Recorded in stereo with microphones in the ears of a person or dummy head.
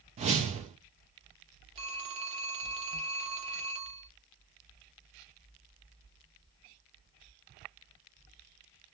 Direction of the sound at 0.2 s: 30° right (ahead or behind).